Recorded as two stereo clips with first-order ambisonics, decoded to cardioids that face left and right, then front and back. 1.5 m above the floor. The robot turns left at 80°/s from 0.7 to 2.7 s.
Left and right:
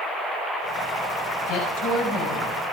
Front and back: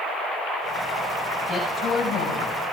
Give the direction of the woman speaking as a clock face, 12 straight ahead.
8 o'clock.